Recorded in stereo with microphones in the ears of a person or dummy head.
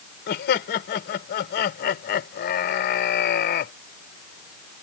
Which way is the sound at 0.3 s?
50° left (ahead or behind).